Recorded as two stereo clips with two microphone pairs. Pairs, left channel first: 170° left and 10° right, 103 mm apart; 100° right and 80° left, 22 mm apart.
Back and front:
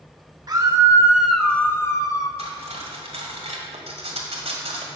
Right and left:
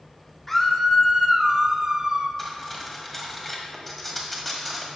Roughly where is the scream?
Ahead right.